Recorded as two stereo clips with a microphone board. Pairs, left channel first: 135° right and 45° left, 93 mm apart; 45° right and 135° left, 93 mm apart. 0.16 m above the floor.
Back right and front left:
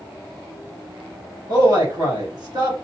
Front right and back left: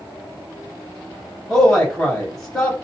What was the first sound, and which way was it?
A man speaking, 40° left.